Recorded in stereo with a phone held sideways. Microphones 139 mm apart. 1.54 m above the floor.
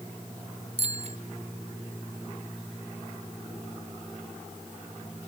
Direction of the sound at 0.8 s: 50° right (ahead or behind).